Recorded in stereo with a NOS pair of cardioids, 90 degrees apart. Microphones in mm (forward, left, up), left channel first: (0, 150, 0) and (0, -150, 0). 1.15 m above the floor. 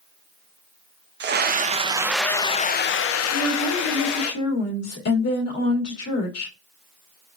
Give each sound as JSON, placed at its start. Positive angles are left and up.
{"t": 1.2, "sound": "a scream", "azimuth_deg": -35, "distance_m": 0.8}
{"t": 3.3, "sound": "a woman speaking", "azimuth_deg": 55, "distance_m": 2.0}